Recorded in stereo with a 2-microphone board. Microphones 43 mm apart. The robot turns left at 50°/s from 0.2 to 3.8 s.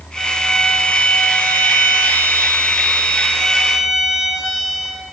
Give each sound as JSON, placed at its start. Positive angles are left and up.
{"t": 0.2, "sound": "a violin", "azimuth_deg": 180, "distance_m": 2.0}